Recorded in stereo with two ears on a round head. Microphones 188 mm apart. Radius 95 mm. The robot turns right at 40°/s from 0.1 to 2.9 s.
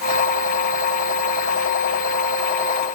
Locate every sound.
Only background noise.